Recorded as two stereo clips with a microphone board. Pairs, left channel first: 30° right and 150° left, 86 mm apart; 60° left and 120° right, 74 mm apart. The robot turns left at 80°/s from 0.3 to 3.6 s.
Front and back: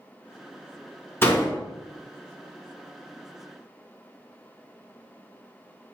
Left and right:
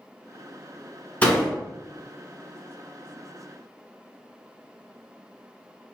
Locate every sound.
1.2 s a door slam: 5° left, 1.1 m; by 1.6 s 25° right, 1.1 m